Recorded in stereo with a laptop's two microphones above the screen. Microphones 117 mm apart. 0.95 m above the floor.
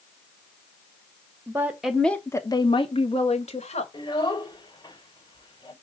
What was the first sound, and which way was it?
A woman speaking, 25° right (ahead or behind).